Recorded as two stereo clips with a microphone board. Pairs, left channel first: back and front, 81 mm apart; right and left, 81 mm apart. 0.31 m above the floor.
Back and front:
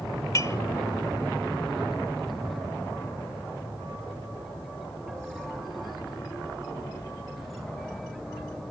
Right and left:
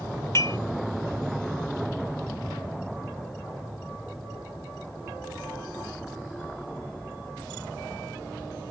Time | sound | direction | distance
0.3 | dishes clattering | 140° right | 1.7 m